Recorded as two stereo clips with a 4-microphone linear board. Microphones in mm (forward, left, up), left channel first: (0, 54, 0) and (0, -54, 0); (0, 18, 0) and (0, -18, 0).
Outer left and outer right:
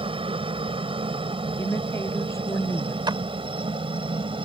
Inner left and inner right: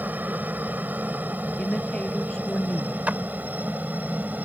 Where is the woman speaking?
25° left (ahead or behind).